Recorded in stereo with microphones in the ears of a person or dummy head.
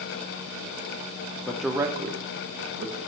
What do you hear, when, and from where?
1.5 s a man speaking: 10° left (ahead or behind), 0.7 m; by 3.0 s 60° right (ahead or behind), 1.0 m